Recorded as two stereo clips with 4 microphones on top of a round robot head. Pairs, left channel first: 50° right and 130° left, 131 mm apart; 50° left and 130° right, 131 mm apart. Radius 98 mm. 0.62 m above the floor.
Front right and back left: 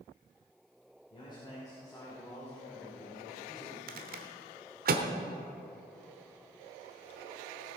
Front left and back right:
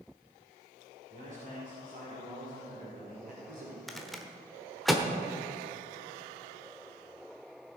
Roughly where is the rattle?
Behind left.